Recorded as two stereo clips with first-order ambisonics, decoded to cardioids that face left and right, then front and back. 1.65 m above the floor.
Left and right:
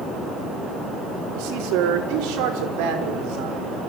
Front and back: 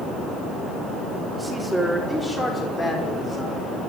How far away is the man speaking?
About 4.5 m.